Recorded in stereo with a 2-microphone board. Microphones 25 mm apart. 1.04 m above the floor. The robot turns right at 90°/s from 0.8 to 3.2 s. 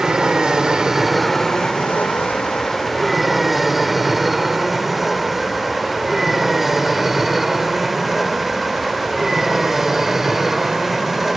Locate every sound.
0.0 s an aircraft: 35° right (ahead or behind); by 11.4 s 15° right (ahead or behind)